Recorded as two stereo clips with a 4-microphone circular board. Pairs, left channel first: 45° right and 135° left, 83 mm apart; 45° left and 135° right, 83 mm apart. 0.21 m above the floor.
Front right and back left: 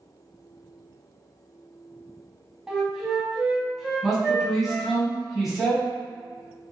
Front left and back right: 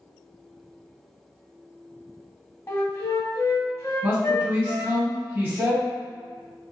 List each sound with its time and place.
2.7 s a flute: 55° left, 0.6 m
4.0 s a man speaking: 140° right, 1.2 m